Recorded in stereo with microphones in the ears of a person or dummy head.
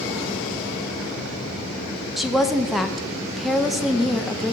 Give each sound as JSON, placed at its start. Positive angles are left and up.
{"t": 2.2, "sound": "a woman speaking", "side_deg": 0, "distance_m": 0.5}